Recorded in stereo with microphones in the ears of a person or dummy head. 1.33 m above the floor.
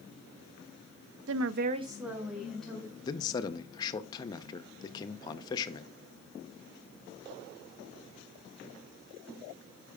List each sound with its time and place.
1.3 s a woman speaking: 70° right (ahead or behind), 0.6 m; by 2.9 s 5° left (ahead or behind), 2 m
3.0 s a man speaking: 25° left (ahead or behind), 0.6 m